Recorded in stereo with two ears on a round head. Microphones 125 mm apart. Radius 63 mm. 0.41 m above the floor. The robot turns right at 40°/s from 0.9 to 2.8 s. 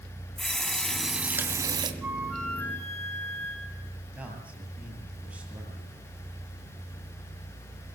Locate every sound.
0.4 s a running tap: 175° left, 2.5 m; by 1.9 s 145° right, 2.5 m
2.0 s a flute: 10° right, 4 m; by 3.9 s 20° left, 4 m
4.2 s a man speaking: 10° right (ahead or behind), 8 m